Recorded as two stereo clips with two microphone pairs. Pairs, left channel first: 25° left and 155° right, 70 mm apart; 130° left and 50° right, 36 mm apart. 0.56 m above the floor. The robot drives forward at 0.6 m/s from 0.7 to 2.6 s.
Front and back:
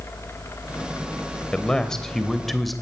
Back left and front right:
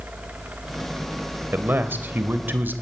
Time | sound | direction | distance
1.5 | a man speaking | 55° right | 3 m